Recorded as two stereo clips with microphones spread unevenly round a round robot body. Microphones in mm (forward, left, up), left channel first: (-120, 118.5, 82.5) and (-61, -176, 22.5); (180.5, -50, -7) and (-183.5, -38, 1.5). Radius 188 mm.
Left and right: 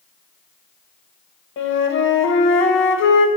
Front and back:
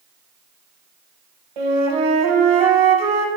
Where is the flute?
160° left, 0.6 m.